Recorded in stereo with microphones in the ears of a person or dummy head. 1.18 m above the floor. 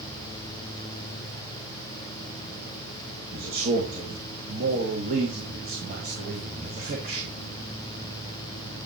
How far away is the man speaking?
About 1.6 m.